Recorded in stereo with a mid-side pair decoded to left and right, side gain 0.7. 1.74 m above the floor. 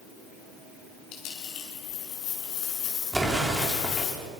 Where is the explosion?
Straight ahead, 5 m.